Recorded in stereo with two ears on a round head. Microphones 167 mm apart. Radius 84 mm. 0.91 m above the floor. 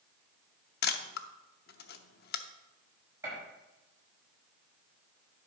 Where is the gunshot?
15° right (ahead or behind), 5.5 m.